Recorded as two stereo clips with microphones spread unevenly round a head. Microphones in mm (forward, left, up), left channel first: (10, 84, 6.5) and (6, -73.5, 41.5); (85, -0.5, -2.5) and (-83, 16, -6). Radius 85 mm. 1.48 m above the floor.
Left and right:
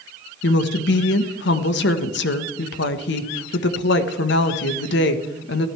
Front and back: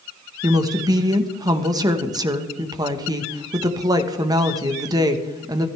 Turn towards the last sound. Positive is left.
turn(degrees=105)